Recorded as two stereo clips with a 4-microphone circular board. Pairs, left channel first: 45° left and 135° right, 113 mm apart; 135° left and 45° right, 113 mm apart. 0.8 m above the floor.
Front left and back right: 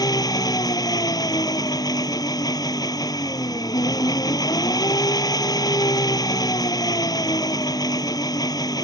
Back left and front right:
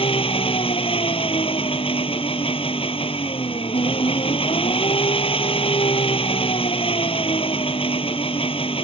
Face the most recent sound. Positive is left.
turn(degrees=100)